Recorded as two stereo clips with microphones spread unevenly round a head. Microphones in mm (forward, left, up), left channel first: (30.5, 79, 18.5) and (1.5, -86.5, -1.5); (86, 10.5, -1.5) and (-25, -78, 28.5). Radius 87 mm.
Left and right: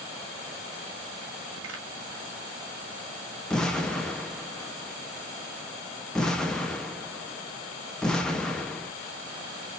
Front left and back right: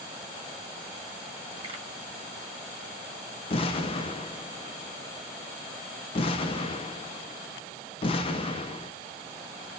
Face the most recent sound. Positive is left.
turn(degrees=15)